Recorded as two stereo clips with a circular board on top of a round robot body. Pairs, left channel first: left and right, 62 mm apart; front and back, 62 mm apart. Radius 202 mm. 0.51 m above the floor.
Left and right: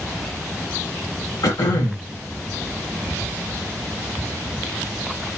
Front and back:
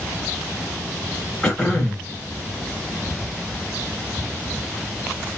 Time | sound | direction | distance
1.4 | throat clearing | 75° left | 0.5 m